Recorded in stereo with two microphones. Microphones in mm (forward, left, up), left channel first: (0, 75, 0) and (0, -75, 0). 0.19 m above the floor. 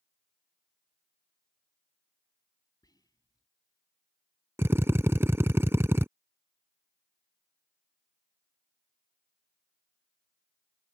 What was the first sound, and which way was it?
Whispering, 25° left (ahead or behind).